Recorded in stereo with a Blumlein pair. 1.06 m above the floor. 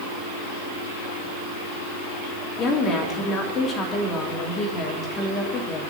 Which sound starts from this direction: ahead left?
A woman speaking, at 2.6 s.